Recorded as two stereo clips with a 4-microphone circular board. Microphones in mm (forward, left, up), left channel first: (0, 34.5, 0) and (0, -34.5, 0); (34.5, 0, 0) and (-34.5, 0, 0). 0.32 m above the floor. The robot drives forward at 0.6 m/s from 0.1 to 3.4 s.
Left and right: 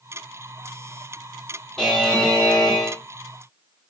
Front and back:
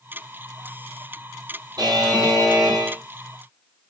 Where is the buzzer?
175° left, 2.5 m.